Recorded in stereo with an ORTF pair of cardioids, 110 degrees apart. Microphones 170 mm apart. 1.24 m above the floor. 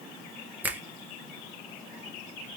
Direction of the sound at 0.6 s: 10° right.